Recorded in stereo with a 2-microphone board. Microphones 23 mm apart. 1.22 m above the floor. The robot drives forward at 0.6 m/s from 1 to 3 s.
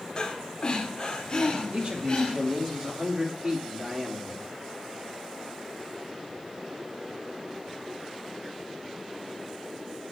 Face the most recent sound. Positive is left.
turn(degrees=-30)  # may be behind; listen again after turning